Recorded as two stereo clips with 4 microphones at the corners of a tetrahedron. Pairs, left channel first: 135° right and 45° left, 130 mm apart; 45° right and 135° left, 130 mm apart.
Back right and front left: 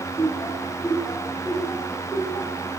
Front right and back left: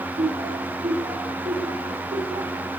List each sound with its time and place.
0.2 s laughter: 145° left, 9.5 m; by 2.6 s 140° left, 10.5 m